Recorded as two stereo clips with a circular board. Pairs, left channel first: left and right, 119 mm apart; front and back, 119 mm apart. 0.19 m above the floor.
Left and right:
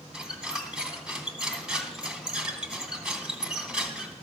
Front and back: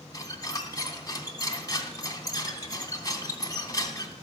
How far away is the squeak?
About 1.1 m.